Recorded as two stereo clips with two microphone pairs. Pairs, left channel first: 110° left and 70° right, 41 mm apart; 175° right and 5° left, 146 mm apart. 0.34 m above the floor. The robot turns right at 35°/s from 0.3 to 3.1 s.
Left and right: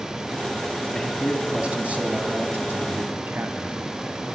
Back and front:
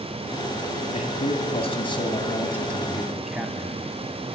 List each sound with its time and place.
0.9 s a man speaking: 155° right, 2 m; by 4.2 s 80° right, 2 m